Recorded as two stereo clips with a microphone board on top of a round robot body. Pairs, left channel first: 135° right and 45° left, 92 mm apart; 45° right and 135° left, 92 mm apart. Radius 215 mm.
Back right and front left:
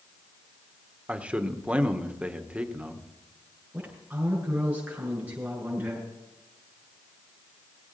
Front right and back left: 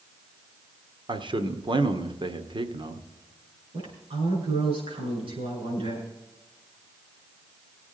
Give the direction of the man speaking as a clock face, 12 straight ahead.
8 o'clock.